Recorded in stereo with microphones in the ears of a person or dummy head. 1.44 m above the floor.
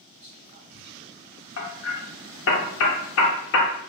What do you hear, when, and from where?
0.2 s whispering: 35° right (ahead or behind), 0.7 m
1.6 s hammering: 70° left (ahead or behind), 0.6 m